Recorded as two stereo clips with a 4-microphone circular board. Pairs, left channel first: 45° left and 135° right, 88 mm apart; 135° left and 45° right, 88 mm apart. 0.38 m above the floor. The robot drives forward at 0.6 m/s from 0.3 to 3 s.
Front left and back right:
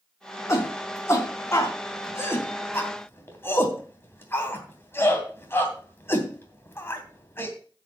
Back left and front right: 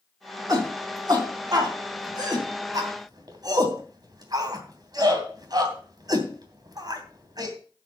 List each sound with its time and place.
0.5 s a shout: 10° right, 4 m; by 7.5 s 15° right, 3 m